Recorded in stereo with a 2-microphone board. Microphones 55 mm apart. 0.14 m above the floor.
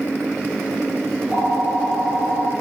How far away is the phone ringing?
About 3 m.